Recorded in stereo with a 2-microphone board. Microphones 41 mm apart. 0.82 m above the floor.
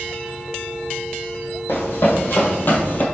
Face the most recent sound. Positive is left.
turn(degrees=40)  # may be behind; listen again after turning